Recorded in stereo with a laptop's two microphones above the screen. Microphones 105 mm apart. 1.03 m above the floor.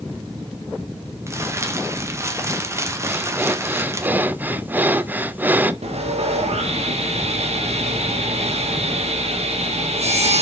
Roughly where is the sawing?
Right.